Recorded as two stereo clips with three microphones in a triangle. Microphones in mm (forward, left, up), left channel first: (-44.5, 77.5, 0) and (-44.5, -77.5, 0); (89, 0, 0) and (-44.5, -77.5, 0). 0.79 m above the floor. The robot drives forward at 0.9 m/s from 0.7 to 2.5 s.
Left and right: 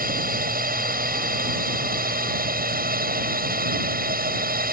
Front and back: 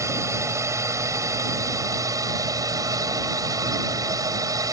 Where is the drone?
80° right; by 4.7 s 85° right.